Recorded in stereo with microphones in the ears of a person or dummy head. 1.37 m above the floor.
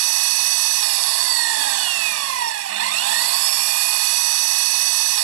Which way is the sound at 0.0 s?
80° right.